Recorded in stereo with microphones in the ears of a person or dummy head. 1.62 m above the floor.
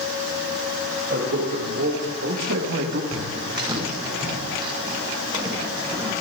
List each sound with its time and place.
1.1 s a man speaking: 60° right (ahead or behind), 3 m; by 3.0 s 70° right (ahead or behind), 1.5 m
3.1 s footsteps: 20° right (ahead or behind), 6.5 m; by 6.1 s 25° right (ahead or behind), 8.5 m